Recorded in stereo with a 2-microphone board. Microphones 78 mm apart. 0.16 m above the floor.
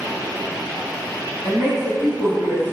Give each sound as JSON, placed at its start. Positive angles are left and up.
{"t": 1.4, "sound": "a woman speaking", "side_deg": -5, "distance_m": 1.6}